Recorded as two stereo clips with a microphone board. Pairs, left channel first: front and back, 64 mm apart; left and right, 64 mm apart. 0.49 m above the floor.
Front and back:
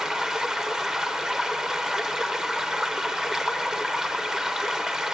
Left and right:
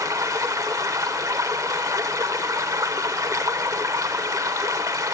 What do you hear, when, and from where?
0.0 s running water: 100° right, 1.1 m